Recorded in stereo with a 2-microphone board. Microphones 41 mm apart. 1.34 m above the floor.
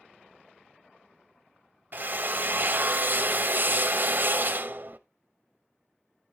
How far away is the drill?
About 0.7 m.